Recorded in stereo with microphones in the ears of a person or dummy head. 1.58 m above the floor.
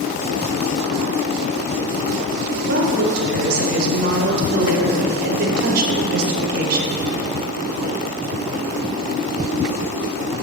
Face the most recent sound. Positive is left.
turn(degrees=-55)  # may be behind; listen again after turning